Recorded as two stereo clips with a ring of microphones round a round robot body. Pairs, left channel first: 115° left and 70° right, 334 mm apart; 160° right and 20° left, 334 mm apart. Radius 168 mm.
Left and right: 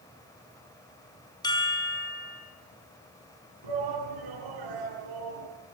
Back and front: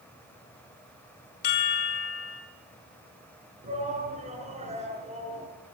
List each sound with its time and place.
1.4 s a chime: 170° right, 3.5 m
3.6 s a shout: 45° right, 8.5 m